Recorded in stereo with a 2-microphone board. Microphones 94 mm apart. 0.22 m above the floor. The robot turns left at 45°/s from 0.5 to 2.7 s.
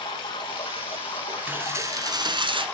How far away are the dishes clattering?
About 1.6 m.